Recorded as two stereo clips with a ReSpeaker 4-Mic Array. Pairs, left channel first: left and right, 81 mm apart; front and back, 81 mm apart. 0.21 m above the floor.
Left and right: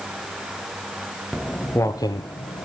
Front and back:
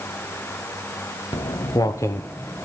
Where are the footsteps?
5° left, 1.0 m; by 2.7 s 80° left, 1.5 m.